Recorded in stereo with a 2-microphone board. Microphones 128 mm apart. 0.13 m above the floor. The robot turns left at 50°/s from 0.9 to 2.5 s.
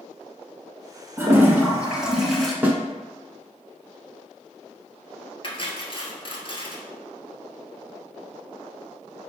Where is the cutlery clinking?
40° left (ahead or behind), 1.3 m.